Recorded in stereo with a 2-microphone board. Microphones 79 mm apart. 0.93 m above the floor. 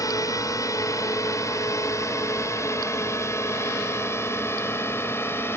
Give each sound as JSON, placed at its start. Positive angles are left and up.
{"t": 0.0, "sound": "a drone", "side_deg": 45}